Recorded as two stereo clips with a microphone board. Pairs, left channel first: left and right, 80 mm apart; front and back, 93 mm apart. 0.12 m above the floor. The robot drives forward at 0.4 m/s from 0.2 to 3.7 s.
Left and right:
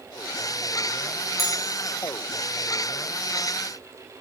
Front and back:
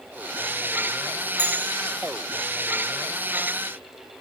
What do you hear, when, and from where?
1.4 s a bell: straight ahead, 2.5 m